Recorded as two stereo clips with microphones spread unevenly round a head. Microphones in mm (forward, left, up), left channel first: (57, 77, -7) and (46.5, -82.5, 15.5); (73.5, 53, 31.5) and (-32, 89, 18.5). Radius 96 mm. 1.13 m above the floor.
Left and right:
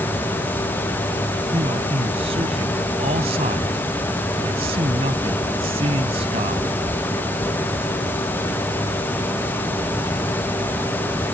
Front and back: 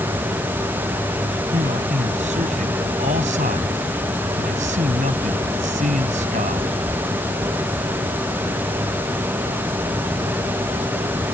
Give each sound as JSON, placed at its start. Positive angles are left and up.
{"t": 1.5, "sound": "a man speaking", "azimuth_deg": -155}